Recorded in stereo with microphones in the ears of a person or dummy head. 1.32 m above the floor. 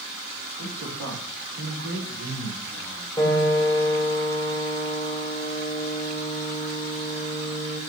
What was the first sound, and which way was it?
A man speaking, 55° right (ahead or behind).